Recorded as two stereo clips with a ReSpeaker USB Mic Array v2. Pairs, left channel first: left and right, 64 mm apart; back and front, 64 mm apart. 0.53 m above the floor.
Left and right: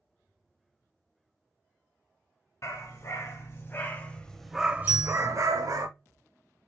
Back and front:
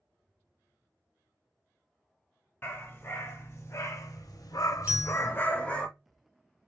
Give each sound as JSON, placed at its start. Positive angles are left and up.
{"t": 2.6, "sound": "a dog barking", "azimuth_deg": 125, "distance_m": 1.5}
{"t": 4.9, "sound": "a bell", "azimuth_deg": -65, "distance_m": 0.8}